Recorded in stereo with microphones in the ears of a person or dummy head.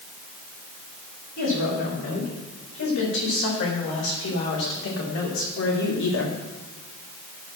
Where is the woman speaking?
75° left (ahead or behind), 5.5 m; by 6.4 s 65° left (ahead or behind), 1.7 m.